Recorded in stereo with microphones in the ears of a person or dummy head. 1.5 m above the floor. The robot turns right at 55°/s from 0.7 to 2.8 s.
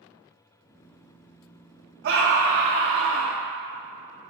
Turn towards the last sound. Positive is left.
turn(degrees=-85)